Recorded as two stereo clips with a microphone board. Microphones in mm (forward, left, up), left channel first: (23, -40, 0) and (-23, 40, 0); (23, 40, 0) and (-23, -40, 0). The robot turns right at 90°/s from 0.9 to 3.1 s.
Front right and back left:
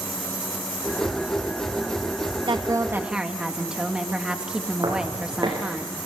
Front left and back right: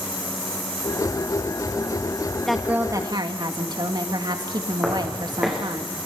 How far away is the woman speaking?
About 2.0 m.